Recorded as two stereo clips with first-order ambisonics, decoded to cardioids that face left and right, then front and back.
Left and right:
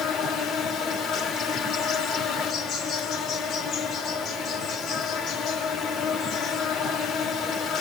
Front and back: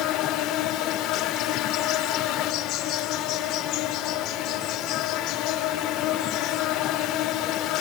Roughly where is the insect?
Ahead left.